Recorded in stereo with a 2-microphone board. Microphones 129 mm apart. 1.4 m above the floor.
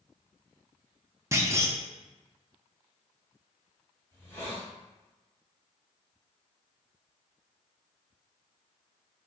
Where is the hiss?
20° left (ahead or behind), 2 m.